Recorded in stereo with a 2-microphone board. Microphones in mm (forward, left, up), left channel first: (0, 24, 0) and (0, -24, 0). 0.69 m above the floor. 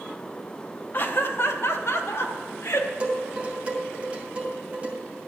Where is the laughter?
40° left (ahead or behind), 0.7 m; by 2.9 s 75° left (ahead or behind), 1.7 m.